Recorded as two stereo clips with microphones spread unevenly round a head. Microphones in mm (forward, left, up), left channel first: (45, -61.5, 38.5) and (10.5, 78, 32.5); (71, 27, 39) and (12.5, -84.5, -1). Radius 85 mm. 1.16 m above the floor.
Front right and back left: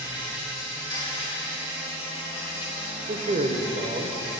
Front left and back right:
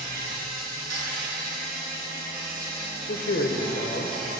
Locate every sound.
0.0 s an insect: 145° right, 2.0 m
3.1 s a man speaking: 70° left, 0.8 m